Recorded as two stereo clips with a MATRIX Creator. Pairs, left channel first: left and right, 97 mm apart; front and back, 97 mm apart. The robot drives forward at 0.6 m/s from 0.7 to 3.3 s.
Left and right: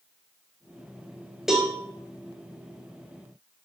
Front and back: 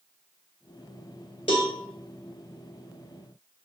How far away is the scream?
No scream in this recording.